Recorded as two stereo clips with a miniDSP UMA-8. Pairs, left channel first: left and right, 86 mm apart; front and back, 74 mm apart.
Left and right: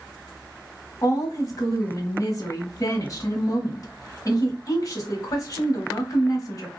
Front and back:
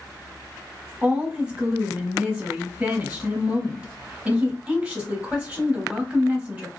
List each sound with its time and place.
1.0 s a woman speaking: 110° left, 1.1 m